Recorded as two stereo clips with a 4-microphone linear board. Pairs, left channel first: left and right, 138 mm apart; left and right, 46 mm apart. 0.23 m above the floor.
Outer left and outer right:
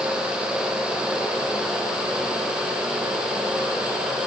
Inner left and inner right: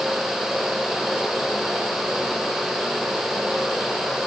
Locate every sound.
Only background noise.